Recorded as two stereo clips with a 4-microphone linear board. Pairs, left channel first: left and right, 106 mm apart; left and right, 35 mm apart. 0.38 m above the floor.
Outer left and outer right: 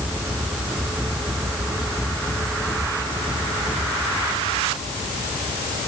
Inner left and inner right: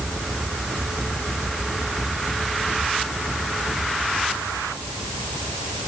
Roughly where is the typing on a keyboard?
No typing on a keyboard in this recording.